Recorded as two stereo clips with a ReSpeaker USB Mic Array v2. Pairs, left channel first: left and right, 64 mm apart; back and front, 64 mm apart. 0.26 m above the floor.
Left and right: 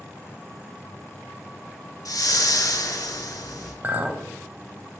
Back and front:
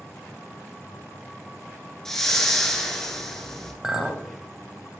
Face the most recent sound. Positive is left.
turn(degrees=-70)